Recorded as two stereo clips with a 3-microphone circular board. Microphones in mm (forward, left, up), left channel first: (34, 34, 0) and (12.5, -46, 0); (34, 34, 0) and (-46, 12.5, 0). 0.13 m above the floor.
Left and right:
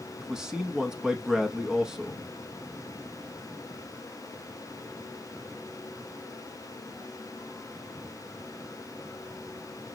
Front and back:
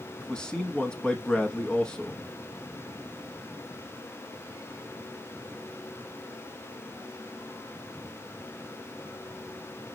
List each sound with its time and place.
0.2 s a man speaking: 40° right, 1.0 m